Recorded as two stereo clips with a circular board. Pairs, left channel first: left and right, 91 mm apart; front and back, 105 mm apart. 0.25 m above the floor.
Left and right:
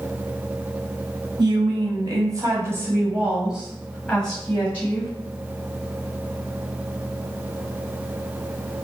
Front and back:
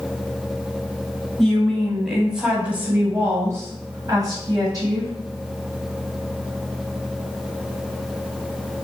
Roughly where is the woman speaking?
Right.